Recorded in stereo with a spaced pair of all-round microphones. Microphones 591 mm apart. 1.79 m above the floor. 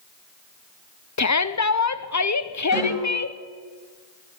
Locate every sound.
1.2 s a shout: 30° left (ahead or behind), 0.6 m
2.7 s a snare drum: centre (ahead or behind), 10 m